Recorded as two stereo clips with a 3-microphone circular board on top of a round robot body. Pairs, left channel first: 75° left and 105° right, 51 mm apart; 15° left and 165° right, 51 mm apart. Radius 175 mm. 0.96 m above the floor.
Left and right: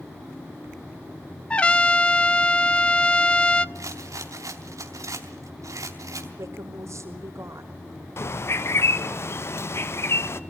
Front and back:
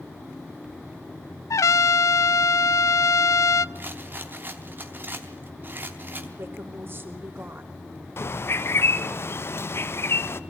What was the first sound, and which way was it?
A trumpet, 5° left.